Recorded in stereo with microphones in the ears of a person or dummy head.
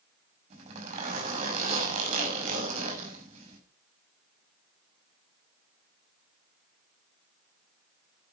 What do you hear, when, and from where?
0.5 s a zipper: 35° right (ahead or behind), 6.5 m